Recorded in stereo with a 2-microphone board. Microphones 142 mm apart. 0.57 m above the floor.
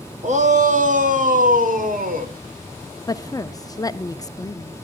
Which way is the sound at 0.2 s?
50° right (ahead or behind).